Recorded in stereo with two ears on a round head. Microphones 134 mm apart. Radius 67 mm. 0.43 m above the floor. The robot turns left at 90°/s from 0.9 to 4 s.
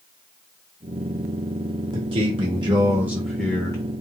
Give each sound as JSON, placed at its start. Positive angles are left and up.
{"t": 1.9, "sound": "a man speaking", "azimuth_deg": -55, "distance_m": 0.9}